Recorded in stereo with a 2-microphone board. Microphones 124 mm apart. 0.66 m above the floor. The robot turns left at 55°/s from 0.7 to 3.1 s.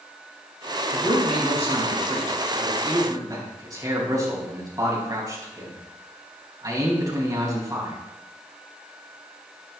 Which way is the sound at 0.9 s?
30° right (ahead or behind).